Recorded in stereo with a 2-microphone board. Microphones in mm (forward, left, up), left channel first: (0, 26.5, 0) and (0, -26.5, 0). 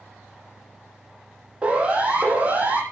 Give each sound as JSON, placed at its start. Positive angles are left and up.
{"t": 1.6, "sound": "a siren", "side_deg": -25, "distance_m": 9.5}